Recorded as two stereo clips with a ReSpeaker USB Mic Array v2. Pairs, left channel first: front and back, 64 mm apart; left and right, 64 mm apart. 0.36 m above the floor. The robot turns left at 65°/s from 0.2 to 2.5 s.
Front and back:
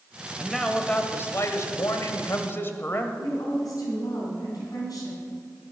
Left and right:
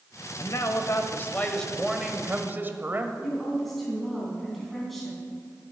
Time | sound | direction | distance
0.4 | a man speaking | 100° left | 1.3 m
3.2 | a woman speaking | 5° left | 3.5 m